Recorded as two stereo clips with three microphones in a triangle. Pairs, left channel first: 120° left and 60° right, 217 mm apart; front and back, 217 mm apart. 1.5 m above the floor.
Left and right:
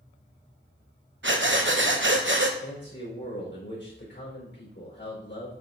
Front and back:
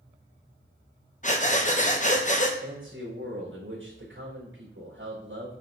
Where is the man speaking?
155° left, 4.5 m.